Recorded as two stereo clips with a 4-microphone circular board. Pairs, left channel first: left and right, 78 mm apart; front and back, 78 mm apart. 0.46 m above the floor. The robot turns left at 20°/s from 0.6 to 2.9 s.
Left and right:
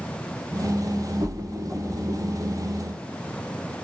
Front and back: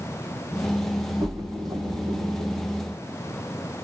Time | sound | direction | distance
1.2 | a splash | 130° right | 0.6 m